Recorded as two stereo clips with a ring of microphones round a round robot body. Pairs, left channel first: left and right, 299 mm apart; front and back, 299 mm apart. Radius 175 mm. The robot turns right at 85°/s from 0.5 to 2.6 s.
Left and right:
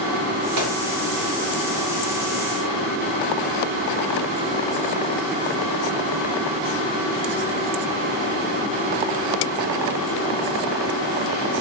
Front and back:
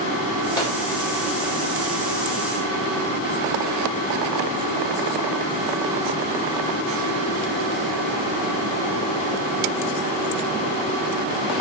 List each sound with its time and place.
0.6 s a microwave: 75° right, 1.0 m; by 0.8 s 55° right, 1.0 m